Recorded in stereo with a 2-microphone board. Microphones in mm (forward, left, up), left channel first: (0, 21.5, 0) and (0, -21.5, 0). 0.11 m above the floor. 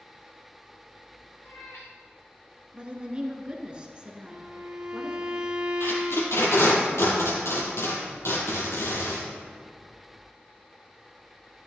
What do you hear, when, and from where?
1.4 s a cat meowing: 80° left, 3 m
2.7 s a woman speaking: 25° right (ahead or behind), 1.3 m
4.3 s a violin: 20° right (ahead or behind), 0.8 m
5.8 s tape being pulled: 70° left (ahead or behind), 2.5 m